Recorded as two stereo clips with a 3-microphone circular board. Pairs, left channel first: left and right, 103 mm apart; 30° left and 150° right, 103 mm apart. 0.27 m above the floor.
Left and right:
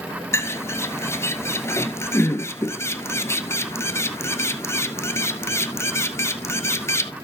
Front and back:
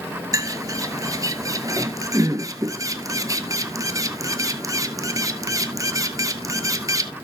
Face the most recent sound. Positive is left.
turn(degrees=155)